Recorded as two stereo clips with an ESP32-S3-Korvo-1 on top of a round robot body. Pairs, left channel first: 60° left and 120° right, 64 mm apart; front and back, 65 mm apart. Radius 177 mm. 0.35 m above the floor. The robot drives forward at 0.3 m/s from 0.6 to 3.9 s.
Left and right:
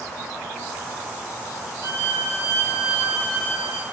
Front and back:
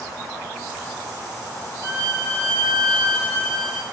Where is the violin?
150° right, 2.5 m; by 3.8 s 155° right, 3 m.